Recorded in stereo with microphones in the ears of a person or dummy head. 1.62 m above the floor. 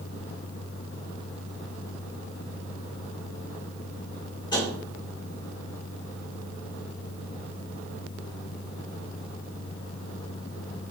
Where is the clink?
I don't hear a clink.